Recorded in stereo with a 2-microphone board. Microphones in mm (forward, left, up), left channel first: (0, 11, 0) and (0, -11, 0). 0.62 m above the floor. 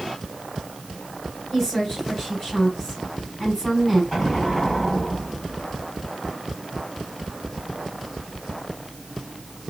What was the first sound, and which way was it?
A woman speaking, 5° right (ahead or behind).